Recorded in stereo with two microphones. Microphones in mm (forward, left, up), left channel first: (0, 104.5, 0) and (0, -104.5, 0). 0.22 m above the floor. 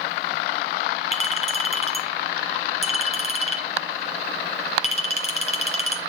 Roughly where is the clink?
Left.